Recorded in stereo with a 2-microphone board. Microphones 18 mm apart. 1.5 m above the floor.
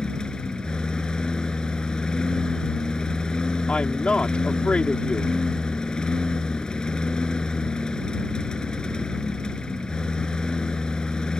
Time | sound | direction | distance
0.0 | a lawn mower | 45° left (ahead or behind) | ?
3.7 | a woman speaking | 85° left | ?